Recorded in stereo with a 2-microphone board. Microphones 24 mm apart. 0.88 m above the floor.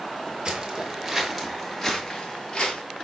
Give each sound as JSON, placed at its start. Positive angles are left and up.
{"t": 0.5, "sound": "footsteps", "side_deg": -35, "distance_m": 1.0}